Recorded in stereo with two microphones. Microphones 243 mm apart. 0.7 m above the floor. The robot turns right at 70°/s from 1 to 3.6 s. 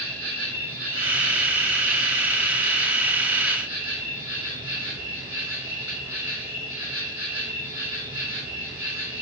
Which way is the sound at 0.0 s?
65° right.